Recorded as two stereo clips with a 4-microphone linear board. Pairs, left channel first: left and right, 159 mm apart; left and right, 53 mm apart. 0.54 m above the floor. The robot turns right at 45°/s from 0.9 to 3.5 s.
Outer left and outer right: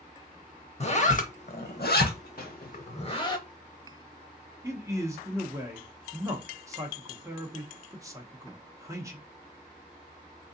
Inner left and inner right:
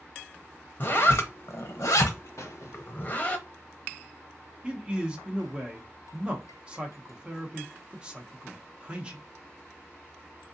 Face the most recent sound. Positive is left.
turn(degrees=-20)  # may be behind; listen again after turning